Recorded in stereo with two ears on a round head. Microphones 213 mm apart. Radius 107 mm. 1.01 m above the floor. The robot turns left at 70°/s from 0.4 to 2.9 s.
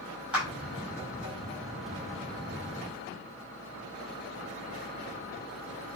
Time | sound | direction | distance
0.3 | a clap | 5° right (ahead or behind) | 7.5 m